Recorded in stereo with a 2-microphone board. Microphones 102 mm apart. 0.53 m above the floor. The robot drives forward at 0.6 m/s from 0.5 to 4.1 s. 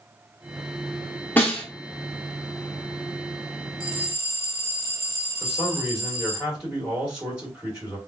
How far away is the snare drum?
About 1.0 m.